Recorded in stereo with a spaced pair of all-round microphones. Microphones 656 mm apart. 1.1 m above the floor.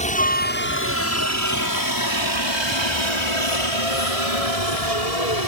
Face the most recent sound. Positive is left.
turn(degrees=70)  # may be behind; listen again after turning